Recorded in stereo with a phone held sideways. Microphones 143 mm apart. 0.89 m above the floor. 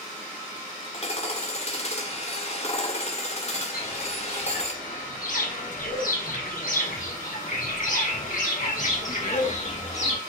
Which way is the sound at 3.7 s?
75° left (ahead or behind).